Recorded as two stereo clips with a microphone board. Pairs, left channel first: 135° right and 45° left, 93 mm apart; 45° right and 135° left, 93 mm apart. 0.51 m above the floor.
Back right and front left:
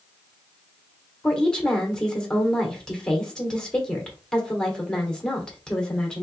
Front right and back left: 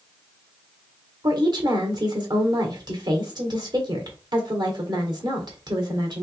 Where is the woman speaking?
145° left, 1.5 m.